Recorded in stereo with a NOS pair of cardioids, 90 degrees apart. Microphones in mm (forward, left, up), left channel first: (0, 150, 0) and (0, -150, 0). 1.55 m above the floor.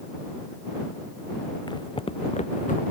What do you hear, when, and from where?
1.7 s footsteps: 15° left; by 2.8 s 25° left